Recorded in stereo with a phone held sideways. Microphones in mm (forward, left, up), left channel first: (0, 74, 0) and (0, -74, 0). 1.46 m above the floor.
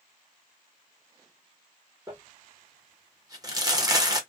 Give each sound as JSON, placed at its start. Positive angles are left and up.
{"t": 2.1, "sound": "crumpling", "side_deg": -25, "distance_m": 0.9}